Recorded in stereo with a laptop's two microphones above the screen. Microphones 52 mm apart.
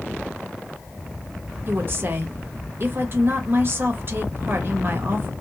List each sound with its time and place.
1.7 s a woman speaking: 45° right (ahead or behind), 1.1 m